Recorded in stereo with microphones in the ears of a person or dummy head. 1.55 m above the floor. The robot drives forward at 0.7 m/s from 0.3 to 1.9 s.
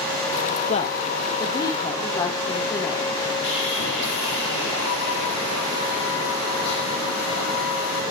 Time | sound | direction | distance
0.7 | a woman speaking | 35° left (ahead or behind) | 1.1 m
3.4 | sawing | 60° left (ahead or behind) | 10 m